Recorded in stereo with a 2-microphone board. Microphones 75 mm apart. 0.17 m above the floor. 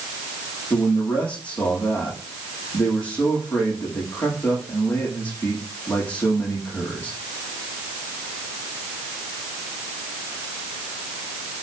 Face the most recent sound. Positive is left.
turn(degrees=20)  # may be behind; listen again after turning